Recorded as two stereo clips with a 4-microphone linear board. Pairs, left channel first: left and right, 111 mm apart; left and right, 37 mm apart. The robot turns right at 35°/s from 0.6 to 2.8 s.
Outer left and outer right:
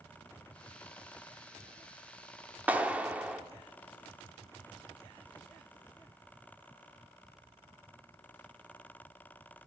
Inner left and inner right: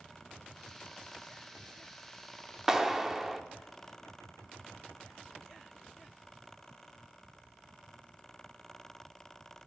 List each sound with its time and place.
2.7 s a clap: 15° right (ahead or behind), 0.7 m; by 3.4 s 10° right (ahead or behind), 0.7 m